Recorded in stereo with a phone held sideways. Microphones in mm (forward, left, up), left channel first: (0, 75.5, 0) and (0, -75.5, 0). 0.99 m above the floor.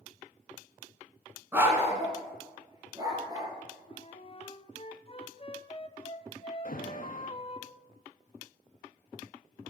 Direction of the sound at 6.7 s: 65° left (ahead or behind).